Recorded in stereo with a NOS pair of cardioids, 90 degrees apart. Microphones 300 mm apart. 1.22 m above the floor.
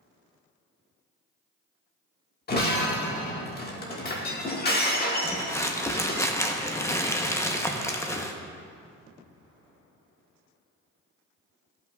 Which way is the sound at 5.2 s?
10° left.